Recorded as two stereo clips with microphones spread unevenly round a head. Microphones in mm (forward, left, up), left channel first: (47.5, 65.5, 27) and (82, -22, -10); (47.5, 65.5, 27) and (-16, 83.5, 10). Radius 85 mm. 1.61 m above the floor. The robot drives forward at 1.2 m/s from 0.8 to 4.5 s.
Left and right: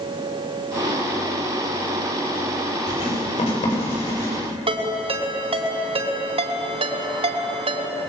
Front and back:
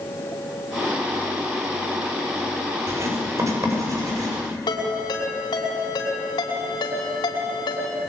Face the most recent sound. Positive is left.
turn(degrees=-45)